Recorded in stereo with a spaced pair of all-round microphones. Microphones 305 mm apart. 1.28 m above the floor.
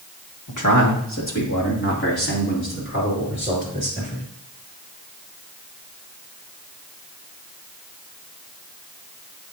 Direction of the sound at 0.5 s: 80° left.